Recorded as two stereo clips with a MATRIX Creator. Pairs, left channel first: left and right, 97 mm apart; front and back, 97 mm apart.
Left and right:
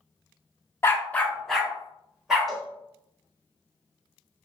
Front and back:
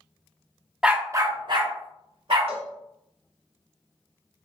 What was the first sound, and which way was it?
A dog barking, 110° left.